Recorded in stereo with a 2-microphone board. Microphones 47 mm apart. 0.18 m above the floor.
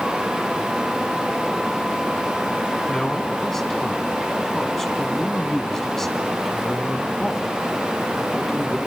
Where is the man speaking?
10° left (ahead or behind), 1.6 m.